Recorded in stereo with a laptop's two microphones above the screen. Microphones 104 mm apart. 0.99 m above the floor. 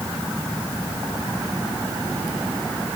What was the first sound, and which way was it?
Only background noise.